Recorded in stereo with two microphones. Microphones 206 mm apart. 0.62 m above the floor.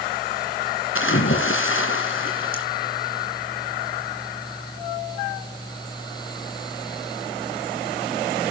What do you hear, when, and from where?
0.9 s a splash: 80° left, 2.5 m